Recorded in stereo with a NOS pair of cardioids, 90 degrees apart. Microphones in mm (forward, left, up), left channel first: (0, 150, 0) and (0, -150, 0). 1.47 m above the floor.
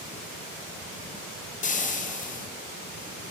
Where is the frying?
25° left, 0.5 m.